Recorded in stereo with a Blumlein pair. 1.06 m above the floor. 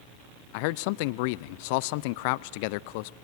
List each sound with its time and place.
0.5 s a man speaking: 45° left, 0.5 m